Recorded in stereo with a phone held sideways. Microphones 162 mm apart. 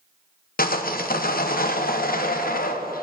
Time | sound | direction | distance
0.6 | sawing | 65° left (ahead or behind) | 0.6 m